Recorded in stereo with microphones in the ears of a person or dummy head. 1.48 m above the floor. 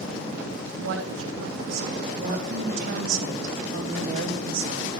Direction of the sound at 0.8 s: 75° right (ahead or behind).